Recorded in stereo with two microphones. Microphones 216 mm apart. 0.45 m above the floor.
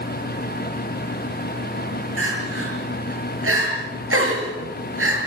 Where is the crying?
80° right, 5.5 m.